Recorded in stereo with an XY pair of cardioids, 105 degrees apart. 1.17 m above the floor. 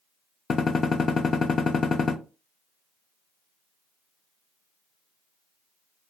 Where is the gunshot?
40° left, 0.5 m.